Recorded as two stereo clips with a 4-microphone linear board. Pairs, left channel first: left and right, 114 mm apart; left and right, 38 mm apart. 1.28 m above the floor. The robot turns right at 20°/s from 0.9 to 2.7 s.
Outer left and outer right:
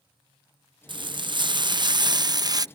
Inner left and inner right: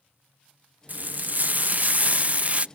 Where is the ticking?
No ticking in this recording.